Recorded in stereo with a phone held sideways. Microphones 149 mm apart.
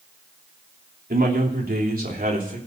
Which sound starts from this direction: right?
A man speaking, at 1.1 s.